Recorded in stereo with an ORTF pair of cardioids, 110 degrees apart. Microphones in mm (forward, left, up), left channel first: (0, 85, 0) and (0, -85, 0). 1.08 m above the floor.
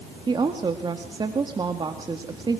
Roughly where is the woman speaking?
Ahead right.